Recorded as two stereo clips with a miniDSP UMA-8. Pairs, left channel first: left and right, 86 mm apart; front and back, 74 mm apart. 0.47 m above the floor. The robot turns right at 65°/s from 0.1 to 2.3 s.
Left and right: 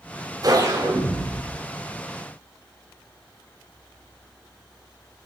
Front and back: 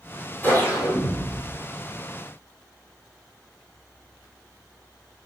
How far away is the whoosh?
About 2.5 m.